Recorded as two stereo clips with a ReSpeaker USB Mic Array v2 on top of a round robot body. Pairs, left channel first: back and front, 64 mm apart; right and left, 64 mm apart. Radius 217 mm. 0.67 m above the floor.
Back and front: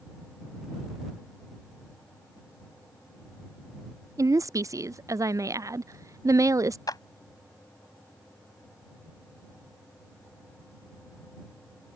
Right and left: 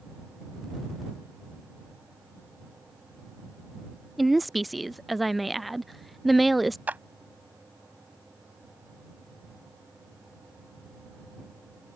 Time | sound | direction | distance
4.2 | a woman speaking | straight ahead | ?
6.9 | a clap | 155° left | ?